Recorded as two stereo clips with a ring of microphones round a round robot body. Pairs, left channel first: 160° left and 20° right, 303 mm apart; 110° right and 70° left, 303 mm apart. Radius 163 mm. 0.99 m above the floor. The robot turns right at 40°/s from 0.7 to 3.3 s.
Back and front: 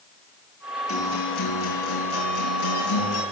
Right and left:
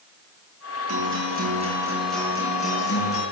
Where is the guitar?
110° left, 8.5 m; by 3.2 s 155° right, 8.5 m.